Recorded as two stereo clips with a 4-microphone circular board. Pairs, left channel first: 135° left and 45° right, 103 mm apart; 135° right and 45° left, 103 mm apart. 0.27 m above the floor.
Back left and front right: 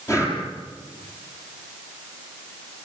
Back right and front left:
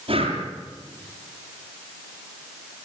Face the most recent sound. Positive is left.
turn(degrees=75)